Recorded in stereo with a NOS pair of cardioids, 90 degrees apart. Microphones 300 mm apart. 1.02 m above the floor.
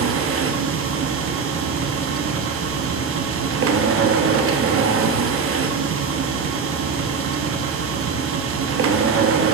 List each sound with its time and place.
0.0 s a machine running: 50° right, 0.8 m